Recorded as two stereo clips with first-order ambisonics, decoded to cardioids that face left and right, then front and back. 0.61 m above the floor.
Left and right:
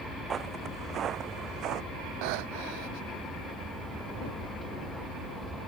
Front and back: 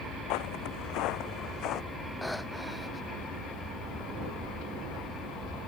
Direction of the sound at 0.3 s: 25° right.